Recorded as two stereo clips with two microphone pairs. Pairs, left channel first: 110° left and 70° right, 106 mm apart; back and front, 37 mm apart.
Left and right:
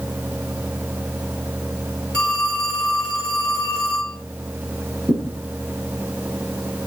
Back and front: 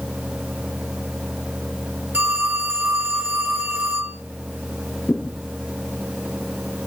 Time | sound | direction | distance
2.1 | a phone ringing | 30° left | 7.5 m
5.1 | a thud | 130° right | 4 m